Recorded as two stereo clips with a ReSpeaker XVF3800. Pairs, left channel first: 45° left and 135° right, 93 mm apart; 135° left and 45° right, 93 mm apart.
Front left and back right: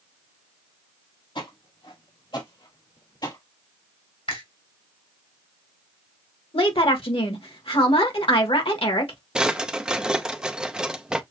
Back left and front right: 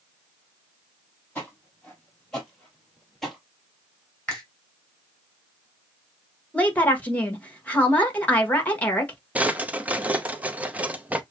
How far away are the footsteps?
About 3 m.